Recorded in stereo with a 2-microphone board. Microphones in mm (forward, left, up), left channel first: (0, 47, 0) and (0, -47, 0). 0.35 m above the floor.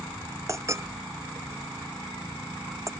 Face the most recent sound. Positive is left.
turn(degrees=-30)  # may be behind; listen again after turning